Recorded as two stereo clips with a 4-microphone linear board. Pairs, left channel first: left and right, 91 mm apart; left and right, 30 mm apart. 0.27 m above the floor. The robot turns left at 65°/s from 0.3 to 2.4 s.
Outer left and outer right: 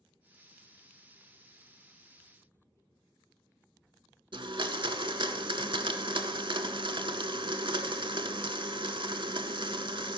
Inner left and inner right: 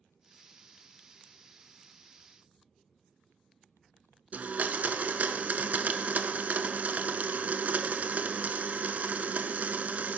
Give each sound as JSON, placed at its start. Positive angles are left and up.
{"t": 4.3, "sound": "a blender", "side_deg": -60, "distance_m": 0.6}